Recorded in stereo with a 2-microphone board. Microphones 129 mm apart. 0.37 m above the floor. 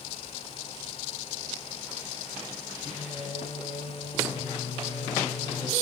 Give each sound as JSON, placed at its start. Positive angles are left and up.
{"t": 2.9, "sound": "singing", "side_deg": 45, "distance_m": 3.0}